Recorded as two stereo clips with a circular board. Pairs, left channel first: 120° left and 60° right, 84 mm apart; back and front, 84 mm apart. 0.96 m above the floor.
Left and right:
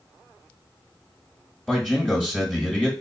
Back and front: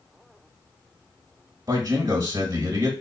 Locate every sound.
1.7 s a man speaking: 40° left, 1.4 m